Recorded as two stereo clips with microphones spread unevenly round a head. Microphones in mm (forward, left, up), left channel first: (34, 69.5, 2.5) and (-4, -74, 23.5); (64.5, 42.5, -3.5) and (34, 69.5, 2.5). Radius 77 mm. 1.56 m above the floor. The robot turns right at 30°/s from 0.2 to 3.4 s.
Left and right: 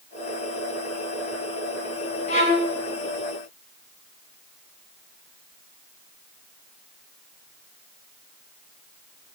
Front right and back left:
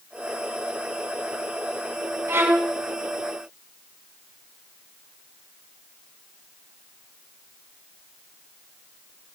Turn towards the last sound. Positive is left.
turn(degrees=150)